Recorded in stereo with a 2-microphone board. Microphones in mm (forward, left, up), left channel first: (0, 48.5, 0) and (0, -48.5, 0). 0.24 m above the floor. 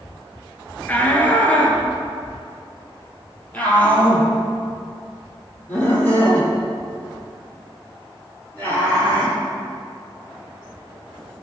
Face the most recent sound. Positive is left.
turn(degrees=15)  # may be behind; listen again after turning